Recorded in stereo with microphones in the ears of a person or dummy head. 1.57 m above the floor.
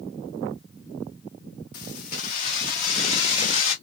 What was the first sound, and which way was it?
Keys jangling, 50° left (ahead or behind).